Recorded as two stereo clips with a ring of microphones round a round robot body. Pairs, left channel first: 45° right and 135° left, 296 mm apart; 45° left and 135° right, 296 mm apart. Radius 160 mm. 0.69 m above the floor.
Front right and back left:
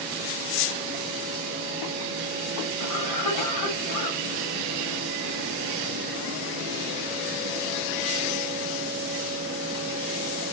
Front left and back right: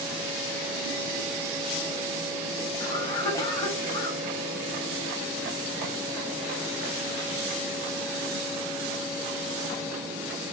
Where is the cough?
35° right, 4 m.